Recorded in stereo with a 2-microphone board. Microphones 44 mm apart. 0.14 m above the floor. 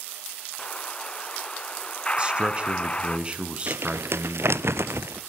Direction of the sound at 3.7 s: 75° right (ahead or behind).